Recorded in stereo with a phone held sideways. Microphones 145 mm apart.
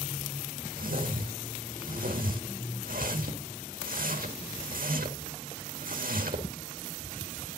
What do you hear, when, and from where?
0.8 s a whoosh: 70° right (ahead or behind), 1.7 m